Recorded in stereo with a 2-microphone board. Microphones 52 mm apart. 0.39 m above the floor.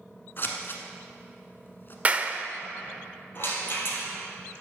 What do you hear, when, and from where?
0.4 s scissors: 45° left (ahead or behind), 1.3 m
2.0 s a clap: 25° right (ahead or behind), 0.6 m
3.4 s a rattle: 45° left (ahead or behind), 2.5 m